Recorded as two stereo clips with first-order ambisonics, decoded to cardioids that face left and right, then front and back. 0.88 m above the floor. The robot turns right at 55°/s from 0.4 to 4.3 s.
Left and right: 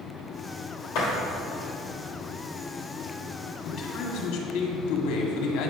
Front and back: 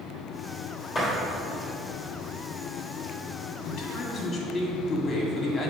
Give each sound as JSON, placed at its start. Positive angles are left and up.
{"t": 0.9, "sound": "a door slam", "azimuth_deg": 70, "distance_m": 3.0}
{"t": 3.6, "sound": "a man speaking", "azimuth_deg": 30, "distance_m": 1.8}